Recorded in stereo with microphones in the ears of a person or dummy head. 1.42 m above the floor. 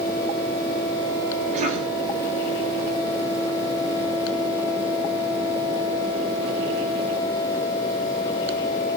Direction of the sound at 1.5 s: 45° right (ahead or behind).